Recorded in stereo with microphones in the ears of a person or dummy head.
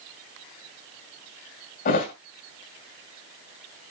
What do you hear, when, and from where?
1.9 s a thud: 40° left (ahead or behind), 2 m